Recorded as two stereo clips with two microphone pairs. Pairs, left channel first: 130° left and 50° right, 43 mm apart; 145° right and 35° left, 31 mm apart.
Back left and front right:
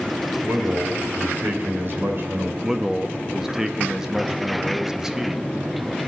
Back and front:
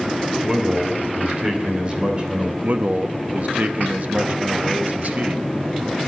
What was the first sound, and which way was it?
A man speaking, 25° right.